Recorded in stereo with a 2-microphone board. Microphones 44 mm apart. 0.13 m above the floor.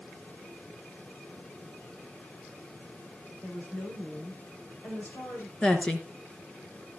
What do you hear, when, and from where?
3.4 s a woman speaking: 55° left (ahead or behind), 5.5 m
5.6 s a woman speaking: 20° left (ahead or behind), 1.9 m